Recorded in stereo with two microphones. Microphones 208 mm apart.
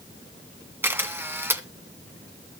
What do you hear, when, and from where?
0.8 s a camera shutter: 10° right (ahead or behind), 2.0 m